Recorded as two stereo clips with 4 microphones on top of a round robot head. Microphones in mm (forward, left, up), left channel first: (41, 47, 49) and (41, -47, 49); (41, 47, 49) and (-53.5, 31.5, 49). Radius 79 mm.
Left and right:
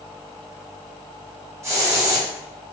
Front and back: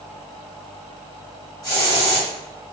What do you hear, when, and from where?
1.6 s a hiss: 35° right, 2.0 m